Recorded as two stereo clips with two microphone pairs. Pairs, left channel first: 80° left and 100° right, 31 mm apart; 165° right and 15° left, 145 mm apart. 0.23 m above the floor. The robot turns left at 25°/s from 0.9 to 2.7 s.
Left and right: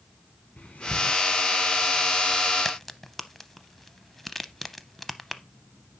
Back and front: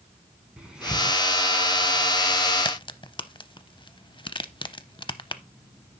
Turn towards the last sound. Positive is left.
turn(degrees=160)